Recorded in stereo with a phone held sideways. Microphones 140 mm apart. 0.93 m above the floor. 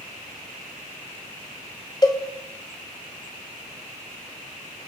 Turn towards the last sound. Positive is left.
turn(degrees=25)  # may be behind; listen again after turning